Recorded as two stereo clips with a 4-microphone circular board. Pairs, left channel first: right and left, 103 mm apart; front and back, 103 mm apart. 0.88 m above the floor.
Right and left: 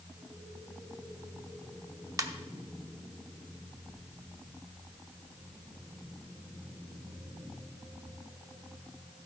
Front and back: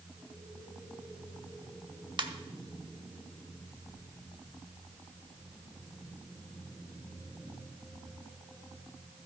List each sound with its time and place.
2.2 s a ringtone: 145° left, 0.8 m